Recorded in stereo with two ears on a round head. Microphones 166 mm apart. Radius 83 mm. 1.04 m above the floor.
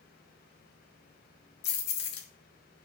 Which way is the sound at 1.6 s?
55° left (ahead or behind).